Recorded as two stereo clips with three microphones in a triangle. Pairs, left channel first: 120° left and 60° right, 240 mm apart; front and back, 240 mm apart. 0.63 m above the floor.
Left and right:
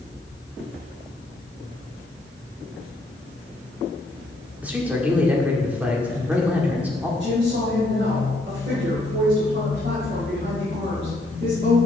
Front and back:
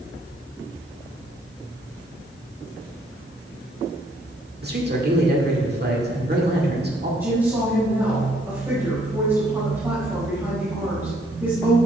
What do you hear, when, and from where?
4.6 s a man speaking: 145° right, 1.7 m
7.2 s a woman speaking: 100° right, 3.5 m